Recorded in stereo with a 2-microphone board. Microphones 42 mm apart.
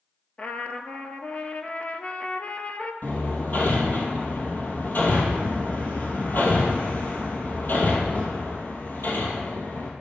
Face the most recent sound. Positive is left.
turn(degrees=50)  # may be behind; listen again after turning